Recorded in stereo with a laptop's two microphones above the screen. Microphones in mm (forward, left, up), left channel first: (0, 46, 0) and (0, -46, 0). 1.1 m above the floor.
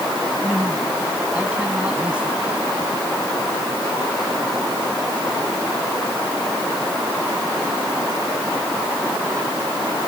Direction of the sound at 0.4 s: 10° right (ahead or behind).